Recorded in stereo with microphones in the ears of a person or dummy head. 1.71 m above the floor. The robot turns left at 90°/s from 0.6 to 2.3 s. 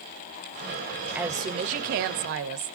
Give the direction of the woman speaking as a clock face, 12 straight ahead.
12 o'clock.